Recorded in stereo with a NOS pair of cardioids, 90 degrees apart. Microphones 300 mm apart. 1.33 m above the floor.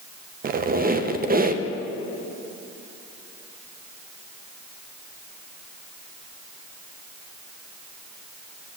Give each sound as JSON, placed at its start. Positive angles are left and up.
{"t": 0.4, "sound": "a squeak", "azimuth_deg": -30, "distance_m": 0.6}